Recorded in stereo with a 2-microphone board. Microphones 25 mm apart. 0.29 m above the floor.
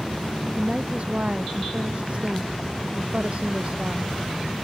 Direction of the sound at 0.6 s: 55° right (ahead or behind).